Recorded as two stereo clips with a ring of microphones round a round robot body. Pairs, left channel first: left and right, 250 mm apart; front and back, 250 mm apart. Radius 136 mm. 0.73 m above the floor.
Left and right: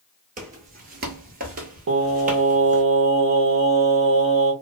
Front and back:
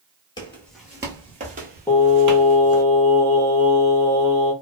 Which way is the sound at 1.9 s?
80° right.